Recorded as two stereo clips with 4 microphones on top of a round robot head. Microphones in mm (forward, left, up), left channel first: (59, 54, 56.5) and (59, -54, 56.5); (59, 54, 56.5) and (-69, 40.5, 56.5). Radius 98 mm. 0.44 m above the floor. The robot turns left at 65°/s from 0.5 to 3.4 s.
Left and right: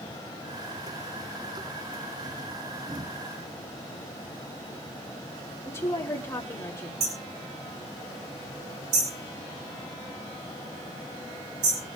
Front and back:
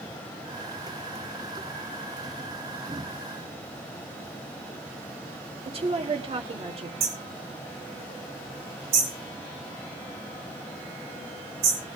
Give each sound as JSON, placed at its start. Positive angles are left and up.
{"t": 5.7, "sound": "a woman speaking", "azimuth_deg": 155, "distance_m": 2.5}
{"t": 7.0, "sound": "hammering", "azimuth_deg": -125, "distance_m": 5.5}